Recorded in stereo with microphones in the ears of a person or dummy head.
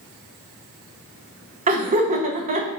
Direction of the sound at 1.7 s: 35° right (ahead or behind).